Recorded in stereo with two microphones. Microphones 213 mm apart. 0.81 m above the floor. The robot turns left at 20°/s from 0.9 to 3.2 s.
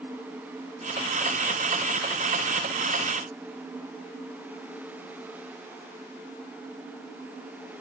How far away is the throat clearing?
No throat clearing in this recording.